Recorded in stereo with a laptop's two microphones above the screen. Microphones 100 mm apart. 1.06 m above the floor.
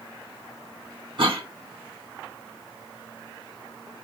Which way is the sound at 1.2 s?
60° right (ahead or behind).